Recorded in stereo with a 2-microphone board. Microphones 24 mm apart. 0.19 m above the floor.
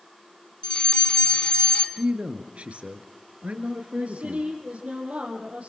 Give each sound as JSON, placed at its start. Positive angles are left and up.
{"t": 0.6, "sound": "a fire alarm", "side_deg": 40, "distance_m": 2.5}
{"t": 2.0, "sound": "a man speaking", "side_deg": -65, "distance_m": 3.5}
{"t": 4.0, "sound": "a woman speaking", "side_deg": -70, "distance_m": 6.0}